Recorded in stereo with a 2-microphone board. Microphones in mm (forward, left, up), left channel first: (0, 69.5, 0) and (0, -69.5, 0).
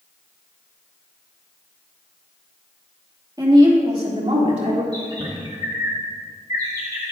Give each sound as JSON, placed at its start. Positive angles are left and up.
{"t": 3.4, "sound": "a woman speaking", "side_deg": -25, "distance_m": 1.9}
{"t": 4.9, "sound": "a bird", "side_deg": -30, "distance_m": 2.0}